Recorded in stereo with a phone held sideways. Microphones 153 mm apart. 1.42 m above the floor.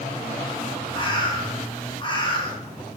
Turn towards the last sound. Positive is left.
turn(degrees=30)  # may be behind; listen again after turning